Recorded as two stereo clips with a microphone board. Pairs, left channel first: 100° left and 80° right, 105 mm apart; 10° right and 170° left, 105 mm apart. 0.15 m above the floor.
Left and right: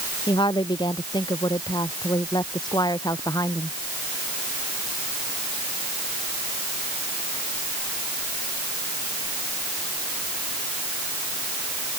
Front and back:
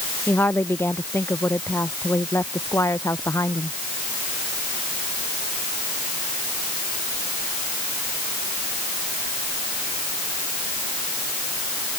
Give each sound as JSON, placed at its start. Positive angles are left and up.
{"t": 0.3, "sound": "a woman speaking", "azimuth_deg": 60}